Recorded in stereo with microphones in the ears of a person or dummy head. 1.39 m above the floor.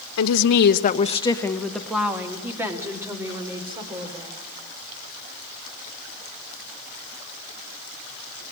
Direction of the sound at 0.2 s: 75° left (ahead or behind).